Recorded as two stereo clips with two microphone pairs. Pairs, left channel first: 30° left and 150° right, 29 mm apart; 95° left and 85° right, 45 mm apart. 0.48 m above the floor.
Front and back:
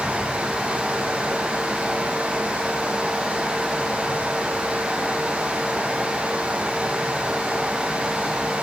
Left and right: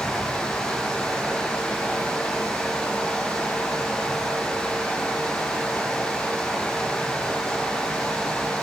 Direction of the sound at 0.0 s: 165° left.